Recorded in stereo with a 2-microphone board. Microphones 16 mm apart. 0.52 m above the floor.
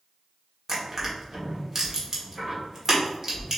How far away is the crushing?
About 1.5 m.